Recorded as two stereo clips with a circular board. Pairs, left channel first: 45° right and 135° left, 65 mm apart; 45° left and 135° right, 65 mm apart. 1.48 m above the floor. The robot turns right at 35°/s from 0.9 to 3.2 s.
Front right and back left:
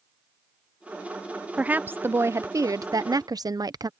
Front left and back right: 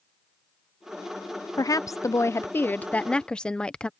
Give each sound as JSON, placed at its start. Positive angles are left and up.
{"t": 1.6, "sound": "a woman speaking", "azimuth_deg": 65}